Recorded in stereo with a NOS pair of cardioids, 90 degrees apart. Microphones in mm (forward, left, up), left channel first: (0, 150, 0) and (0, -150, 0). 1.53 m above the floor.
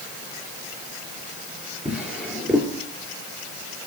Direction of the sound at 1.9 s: 5° right.